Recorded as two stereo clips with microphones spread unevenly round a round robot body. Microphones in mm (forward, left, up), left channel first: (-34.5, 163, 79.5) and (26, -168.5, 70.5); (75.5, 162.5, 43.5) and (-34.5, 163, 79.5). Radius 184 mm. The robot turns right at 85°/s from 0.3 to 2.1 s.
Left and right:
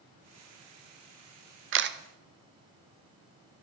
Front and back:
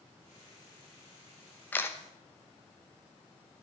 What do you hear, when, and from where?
1.7 s a camera shutter: 45° right, 0.7 m; by 2.0 s 25° right, 0.7 m